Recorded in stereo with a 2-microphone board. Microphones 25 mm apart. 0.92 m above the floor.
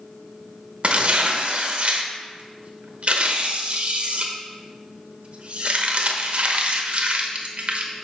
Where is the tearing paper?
50° right (ahead or behind), 1.0 m.